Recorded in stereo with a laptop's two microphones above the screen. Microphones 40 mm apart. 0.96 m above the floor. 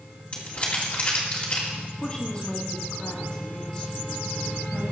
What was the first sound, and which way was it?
Crumpling, 40° left (ahead or behind).